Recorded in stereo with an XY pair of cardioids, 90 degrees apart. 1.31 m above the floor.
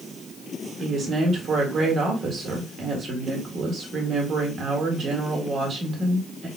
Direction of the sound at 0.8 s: 60° right.